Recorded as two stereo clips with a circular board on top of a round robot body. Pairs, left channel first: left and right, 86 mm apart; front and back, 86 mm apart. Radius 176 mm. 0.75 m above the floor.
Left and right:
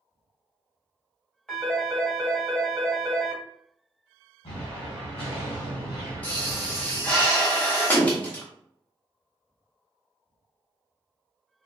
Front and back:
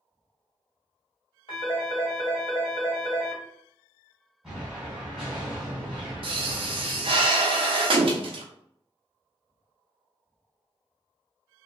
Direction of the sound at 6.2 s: 165° left.